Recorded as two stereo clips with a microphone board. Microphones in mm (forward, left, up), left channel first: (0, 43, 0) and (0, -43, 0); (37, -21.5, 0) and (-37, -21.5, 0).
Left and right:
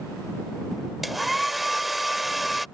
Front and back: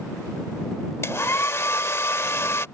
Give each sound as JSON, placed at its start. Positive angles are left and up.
{"t": 1.0, "sound": "a hair dryer", "azimuth_deg": 0}